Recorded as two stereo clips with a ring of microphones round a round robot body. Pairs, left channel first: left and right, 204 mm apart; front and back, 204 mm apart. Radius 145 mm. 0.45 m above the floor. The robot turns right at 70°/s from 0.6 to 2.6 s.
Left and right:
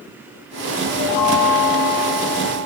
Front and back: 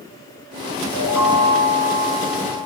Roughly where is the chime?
Left.